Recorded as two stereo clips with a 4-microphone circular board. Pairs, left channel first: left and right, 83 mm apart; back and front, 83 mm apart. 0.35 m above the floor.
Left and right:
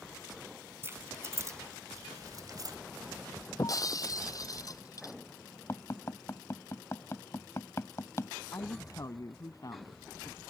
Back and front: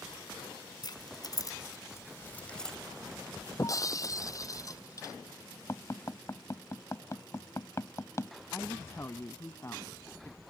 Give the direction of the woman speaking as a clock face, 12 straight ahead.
8 o'clock.